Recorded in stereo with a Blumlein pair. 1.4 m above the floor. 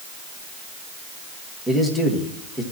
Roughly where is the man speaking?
Ahead.